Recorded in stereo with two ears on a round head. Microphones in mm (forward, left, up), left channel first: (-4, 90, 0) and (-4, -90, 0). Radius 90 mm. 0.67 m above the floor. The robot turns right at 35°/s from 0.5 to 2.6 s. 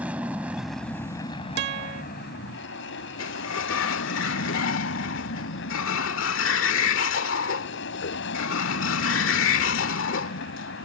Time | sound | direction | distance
0.0 | an aircraft | 5° right | ?
1.6 | a guitar | 55° right (ahead or behind) | ?
3.2 | a sliding door | 70° left (ahead or behind) | ?